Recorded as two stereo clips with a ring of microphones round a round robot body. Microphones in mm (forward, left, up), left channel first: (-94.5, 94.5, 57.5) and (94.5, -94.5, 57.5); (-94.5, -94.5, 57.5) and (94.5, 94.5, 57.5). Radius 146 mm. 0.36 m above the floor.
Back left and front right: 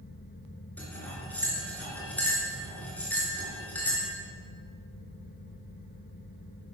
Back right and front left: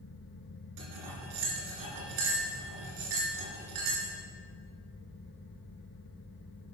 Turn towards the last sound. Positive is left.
turn(degrees=50)